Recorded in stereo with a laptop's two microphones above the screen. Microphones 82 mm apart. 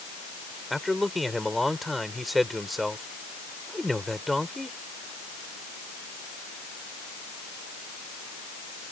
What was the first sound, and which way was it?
A man speaking, centre (ahead or behind).